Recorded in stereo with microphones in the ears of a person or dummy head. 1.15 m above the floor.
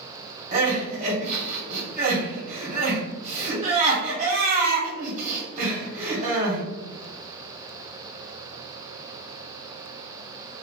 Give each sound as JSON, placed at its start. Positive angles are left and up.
{"t": 0.5, "sound": "crying", "side_deg": -45, "distance_m": 1.8}